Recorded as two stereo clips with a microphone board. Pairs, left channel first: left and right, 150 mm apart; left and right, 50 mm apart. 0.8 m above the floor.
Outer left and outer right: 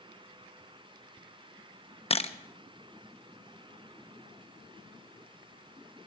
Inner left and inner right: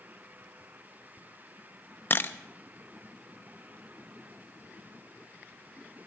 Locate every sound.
2.1 s a camera shutter: 40° left (ahead or behind), 0.7 m